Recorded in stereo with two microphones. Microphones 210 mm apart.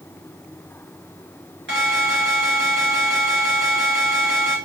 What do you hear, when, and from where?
1.7 s an alarm: 60° right (ahead or behind), 6 m